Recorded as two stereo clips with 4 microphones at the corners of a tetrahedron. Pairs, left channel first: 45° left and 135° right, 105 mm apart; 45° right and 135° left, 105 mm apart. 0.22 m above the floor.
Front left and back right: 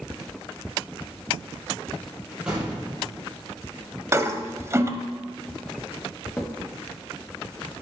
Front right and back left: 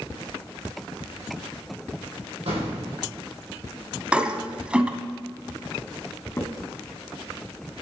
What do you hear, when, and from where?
2.5 s an explosion: 145° left, 4 m
4.1 s a toilet flushing: 160° right, 0.8 m
6.4 s a crack: 15° right, 1.1 m